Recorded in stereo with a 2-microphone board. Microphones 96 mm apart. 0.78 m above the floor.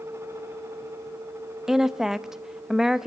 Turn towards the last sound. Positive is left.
turn(degrees=-5)  # may be behind; listen again after turning